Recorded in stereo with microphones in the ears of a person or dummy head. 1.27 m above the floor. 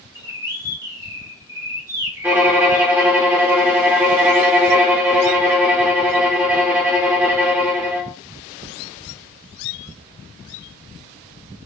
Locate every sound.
0.1 s a bird: 15° right (ahead or behind), 0.6 m
2.2 s a violin: 10° right (ahead or behind), 0.6 m